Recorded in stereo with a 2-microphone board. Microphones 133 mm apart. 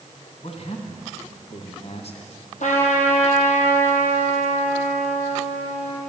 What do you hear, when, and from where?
0.4 s a man speaking: 55° left (ahead or behind), 2.5 m
2.6 s a trumpet: 70° left (ahead or behind), 3 m